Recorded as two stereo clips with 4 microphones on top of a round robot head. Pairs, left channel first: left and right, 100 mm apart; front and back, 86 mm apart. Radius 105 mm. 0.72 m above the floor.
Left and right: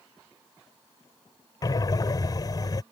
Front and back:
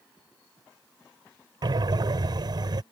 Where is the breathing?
140° left.